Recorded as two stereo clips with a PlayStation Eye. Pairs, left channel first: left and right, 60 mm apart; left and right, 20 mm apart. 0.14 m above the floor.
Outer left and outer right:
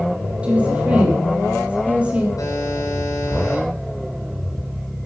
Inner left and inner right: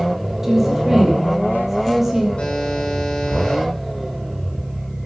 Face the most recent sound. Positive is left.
turn(degrees=65)  # may be behind; listen again after turning